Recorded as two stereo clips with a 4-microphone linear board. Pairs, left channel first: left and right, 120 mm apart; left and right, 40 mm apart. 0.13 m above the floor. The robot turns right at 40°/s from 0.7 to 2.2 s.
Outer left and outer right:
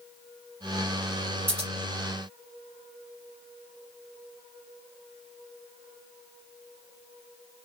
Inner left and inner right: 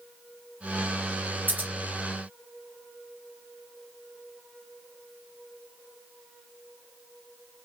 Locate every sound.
1.5 s scissors: 55° right (ahead or behind), 2.0 m